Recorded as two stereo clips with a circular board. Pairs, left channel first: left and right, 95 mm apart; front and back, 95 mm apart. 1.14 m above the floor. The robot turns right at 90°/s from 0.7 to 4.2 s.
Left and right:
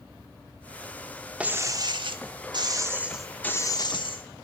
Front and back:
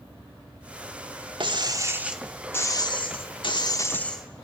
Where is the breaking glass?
165° right, 1.1 m; by 4.4 s 85° left, 1.1 m.